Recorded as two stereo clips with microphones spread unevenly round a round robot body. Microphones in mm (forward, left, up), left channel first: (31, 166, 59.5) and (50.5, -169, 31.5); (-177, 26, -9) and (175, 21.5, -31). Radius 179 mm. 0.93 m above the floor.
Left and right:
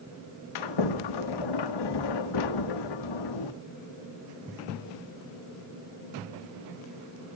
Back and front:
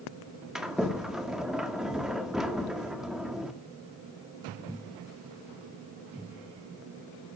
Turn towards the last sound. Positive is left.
turn(degrees=85)